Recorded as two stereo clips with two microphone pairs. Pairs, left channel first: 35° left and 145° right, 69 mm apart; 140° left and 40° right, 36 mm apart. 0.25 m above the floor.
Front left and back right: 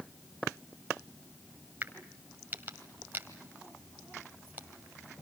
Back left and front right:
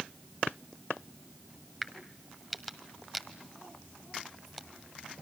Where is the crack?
135° right, 1.6 m.